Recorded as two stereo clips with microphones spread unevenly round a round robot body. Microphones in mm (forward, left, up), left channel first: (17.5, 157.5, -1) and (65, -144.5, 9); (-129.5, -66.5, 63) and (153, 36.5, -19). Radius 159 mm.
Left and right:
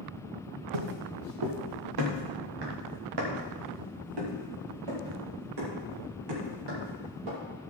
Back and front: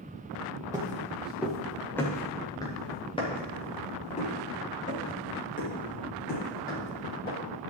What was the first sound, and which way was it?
Footsteps, 65° right.